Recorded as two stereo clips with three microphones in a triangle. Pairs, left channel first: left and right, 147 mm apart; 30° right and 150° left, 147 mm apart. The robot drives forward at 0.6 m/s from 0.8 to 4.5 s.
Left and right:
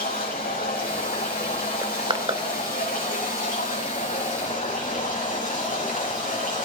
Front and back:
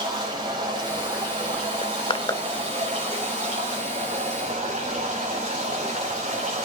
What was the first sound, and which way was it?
Running water, 95° left.